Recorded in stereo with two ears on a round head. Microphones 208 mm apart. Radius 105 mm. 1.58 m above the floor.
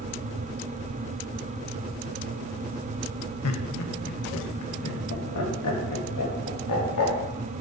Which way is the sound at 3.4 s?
75° left (ahead or behind).